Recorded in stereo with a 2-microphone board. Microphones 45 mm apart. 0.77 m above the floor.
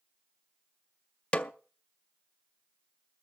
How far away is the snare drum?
About 0.6 m.